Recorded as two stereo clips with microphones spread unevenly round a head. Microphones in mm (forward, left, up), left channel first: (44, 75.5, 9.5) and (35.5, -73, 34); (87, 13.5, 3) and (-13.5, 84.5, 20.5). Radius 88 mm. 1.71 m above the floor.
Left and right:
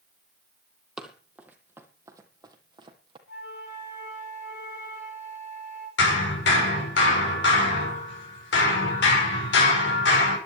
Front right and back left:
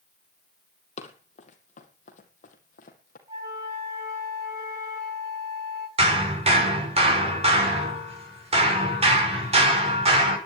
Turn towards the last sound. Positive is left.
turn(degrees=105)